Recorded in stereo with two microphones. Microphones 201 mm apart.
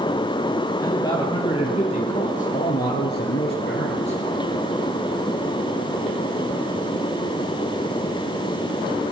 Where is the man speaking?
15° left (ahead or behind), 3 m; by 4.2 s 55° left (ahead or behind), 2.5 m.